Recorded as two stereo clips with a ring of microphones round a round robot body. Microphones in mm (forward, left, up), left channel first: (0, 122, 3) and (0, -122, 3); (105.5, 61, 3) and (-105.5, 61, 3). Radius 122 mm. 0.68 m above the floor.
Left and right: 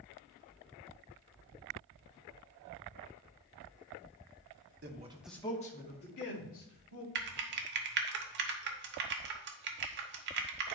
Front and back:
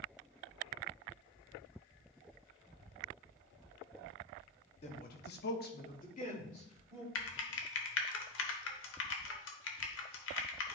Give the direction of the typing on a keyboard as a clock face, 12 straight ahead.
1 o'clock.